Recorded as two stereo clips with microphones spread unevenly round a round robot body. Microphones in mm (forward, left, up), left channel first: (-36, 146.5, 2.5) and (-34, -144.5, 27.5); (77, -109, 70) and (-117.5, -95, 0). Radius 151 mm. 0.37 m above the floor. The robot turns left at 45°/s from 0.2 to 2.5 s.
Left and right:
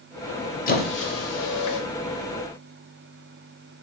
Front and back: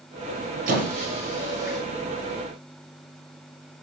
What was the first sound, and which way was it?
A squeak, 150° left.